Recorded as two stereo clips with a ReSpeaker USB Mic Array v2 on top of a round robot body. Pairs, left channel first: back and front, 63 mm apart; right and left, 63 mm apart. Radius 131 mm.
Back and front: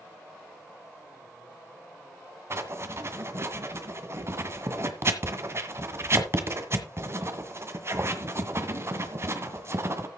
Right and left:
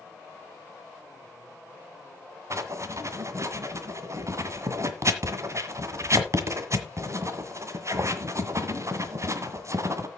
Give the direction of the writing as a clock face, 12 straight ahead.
10 o'clock.